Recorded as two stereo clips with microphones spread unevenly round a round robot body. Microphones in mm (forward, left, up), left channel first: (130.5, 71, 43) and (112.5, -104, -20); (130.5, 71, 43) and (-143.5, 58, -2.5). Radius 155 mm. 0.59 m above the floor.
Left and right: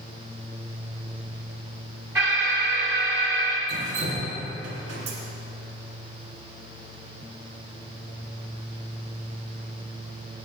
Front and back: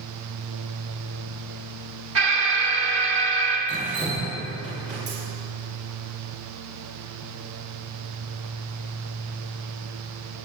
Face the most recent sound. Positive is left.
turn(degrees=-105)